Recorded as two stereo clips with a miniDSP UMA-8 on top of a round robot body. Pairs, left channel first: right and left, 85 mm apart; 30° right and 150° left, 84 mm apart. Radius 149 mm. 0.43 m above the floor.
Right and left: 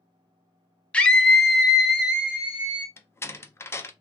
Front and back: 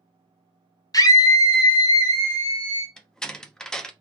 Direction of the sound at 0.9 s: 20° right.